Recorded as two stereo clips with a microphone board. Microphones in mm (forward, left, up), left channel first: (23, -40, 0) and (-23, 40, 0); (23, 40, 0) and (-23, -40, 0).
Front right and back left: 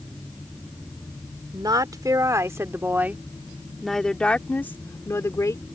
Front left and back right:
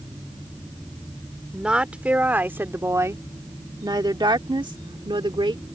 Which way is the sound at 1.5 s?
160° left.